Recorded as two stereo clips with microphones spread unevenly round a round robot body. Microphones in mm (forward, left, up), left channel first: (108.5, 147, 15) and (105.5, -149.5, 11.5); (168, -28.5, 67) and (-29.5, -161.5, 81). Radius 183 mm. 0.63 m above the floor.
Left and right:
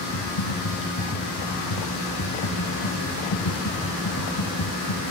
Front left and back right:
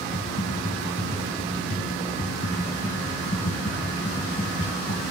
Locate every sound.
0.1 s typing on a keyboard: 100° left